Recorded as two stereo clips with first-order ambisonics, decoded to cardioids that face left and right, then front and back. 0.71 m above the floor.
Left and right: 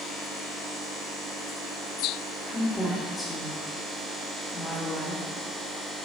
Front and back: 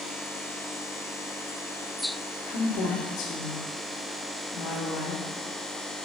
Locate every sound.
2.5 s a woman speaking: 10° left, 2.0 m